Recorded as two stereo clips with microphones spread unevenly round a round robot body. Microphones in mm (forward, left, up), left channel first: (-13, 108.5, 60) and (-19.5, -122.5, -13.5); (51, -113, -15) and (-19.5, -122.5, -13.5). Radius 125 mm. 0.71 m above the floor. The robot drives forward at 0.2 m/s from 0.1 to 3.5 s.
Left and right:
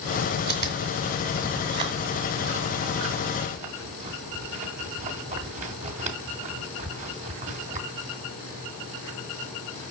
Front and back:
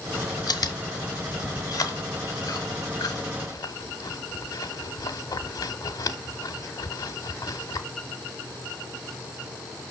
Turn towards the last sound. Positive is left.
turn(degrees=-20)